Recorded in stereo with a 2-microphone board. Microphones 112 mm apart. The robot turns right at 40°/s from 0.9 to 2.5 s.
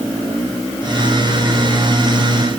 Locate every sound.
Only background noise.